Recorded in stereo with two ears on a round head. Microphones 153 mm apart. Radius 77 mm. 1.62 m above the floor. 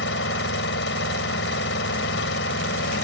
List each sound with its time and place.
0.0 s an engine running: 75° left (ahead or behind)